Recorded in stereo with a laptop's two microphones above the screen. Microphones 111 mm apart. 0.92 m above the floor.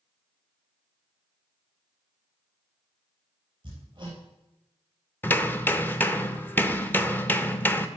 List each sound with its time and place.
3.6 s hammering: 45° right (ahead or behind), 3.5 m
5.2 s hammering: 15° left (ahead or behind), 0.6 m